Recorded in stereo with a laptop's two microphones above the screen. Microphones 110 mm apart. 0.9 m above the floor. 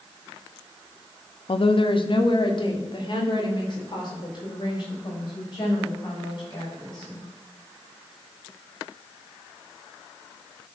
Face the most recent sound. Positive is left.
turn(degrees=40)  # may be behind; listen again after turning